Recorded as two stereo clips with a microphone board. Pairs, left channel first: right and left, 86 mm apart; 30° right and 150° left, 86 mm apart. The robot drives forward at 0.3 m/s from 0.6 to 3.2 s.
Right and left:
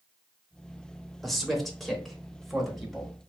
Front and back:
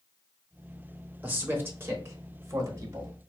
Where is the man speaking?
Straight behind, 0.8 m.